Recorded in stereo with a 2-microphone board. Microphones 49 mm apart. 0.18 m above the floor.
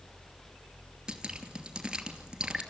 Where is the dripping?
15° right (ahead or behind), 2.5 m.